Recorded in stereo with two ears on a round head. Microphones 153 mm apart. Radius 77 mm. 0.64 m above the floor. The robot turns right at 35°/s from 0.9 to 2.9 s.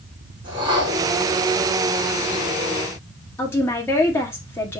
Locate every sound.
0.4 s a whoosh: 25° right (ahead or behind), 3.5 m; by 1.1 s 20° right (ahead or behind), 3.5 m
3.4 s a woman speaking: 15° left (ahead or behind), 1.4 m